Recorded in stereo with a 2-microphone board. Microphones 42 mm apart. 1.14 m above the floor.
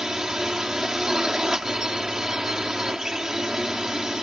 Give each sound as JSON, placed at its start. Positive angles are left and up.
{"t": 0.0, "sound": "a drone", "side_deg": -15}